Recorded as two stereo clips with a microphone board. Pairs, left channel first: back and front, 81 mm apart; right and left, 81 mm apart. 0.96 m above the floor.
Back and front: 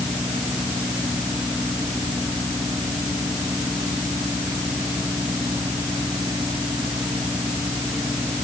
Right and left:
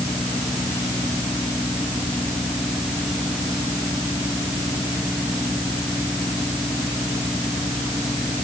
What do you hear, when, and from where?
Only background noise.